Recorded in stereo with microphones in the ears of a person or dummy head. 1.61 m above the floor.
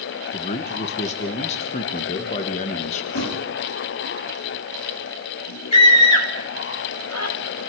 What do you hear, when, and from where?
0.3 s a man speaking: 40° left (ahead or behind), 1.6 m
3.1 s a thud: 65° left (ahead or behind), 5 m
5.7 s a scream: 85° left, 3.5 m